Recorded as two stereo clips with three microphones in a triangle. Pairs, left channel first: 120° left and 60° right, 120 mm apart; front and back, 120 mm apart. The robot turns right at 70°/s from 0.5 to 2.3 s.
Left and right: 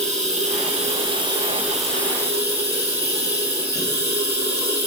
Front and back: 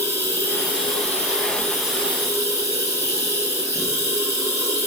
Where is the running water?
65° right, 4 m; by 4.9 s 65° left, 4 m.